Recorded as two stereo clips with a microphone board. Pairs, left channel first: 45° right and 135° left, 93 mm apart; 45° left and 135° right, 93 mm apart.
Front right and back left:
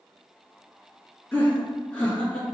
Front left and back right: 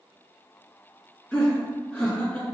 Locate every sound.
1.3 s laughter: 10° right, 1.7 m